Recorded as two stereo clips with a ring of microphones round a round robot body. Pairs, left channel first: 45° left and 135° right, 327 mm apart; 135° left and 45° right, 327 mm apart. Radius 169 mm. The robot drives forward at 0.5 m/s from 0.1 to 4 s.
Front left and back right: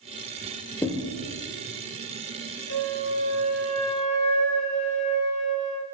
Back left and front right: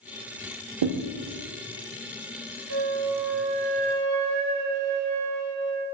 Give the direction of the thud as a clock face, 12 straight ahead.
1 o'clock.